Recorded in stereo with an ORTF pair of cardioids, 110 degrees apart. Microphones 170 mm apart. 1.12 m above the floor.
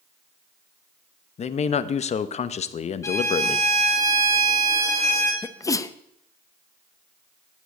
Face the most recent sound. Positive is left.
turn(degrees=20)